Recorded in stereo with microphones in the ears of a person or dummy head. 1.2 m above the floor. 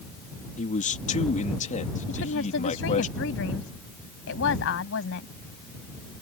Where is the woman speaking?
75° left (ahead or behind).